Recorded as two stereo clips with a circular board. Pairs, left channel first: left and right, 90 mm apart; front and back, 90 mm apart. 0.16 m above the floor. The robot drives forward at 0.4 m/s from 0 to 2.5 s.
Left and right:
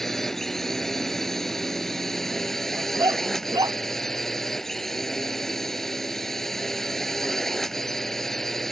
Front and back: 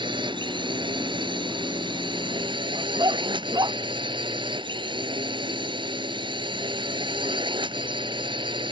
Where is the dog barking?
135° right.